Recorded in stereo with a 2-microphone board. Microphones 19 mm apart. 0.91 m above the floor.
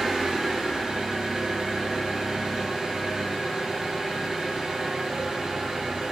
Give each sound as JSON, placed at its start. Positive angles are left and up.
{"t": 0.0, "sound": "an engine running", "side_deg": -70, "distance_m": 3.5}